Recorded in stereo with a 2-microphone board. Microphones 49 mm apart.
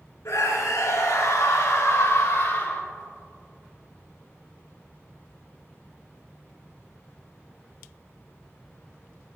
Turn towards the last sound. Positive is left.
turn(degrees=45)  # may be behind; listen again after turning